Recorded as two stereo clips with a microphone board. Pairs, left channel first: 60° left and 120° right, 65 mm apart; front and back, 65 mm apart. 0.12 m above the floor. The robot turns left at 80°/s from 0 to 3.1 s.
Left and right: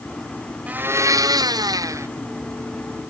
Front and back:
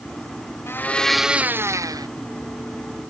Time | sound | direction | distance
0.7 | a blender | 50° right | ?